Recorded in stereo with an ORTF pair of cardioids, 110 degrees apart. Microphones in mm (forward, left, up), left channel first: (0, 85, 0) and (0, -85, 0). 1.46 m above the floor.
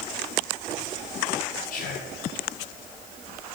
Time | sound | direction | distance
1.7 | whispering | 55° left | 0.8 m